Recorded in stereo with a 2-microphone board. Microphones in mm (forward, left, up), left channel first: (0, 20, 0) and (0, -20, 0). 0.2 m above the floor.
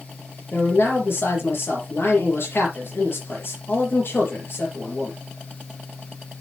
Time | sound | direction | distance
0.5 | a man speaking | 70° left (ahead or behind) | 4.5 m